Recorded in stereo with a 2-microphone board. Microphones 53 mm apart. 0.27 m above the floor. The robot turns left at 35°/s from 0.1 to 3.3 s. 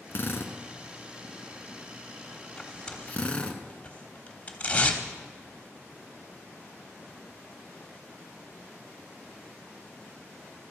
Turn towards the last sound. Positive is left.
turn(degrees=25)  # may be behind; listen again after turning